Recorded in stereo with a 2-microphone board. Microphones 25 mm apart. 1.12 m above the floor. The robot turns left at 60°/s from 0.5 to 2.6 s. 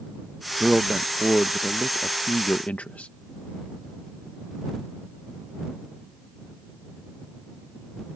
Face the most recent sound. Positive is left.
turn(degrees=95)